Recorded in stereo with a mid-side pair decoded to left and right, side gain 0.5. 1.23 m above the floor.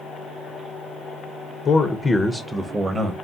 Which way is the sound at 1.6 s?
45° left.